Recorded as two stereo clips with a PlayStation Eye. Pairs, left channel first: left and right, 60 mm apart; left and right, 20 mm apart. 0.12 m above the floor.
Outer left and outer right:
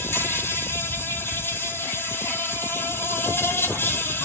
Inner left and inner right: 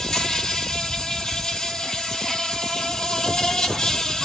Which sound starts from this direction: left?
An insect, at 0.0 s.